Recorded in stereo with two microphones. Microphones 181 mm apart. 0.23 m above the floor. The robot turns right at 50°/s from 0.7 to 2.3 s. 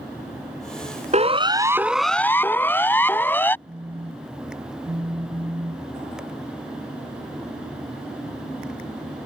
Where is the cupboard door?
I don't hear a cupboard door.